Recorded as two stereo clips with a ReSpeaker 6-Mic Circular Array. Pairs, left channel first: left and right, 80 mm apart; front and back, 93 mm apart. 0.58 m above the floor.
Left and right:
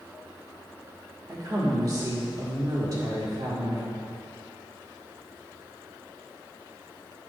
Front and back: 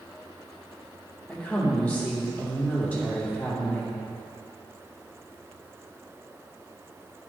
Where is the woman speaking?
70° right, 1.7 m.